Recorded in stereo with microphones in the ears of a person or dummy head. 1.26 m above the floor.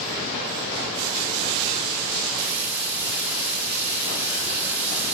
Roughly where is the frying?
Right.